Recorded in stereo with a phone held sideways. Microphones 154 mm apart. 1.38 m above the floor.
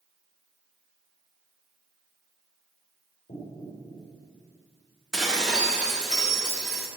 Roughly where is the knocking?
Left.